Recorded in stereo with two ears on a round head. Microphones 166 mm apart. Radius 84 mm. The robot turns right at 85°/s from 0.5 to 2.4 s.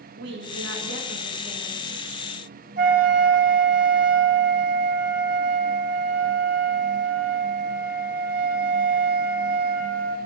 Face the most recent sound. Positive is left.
turn(degrees=-45)  # may be behind; listen again after turning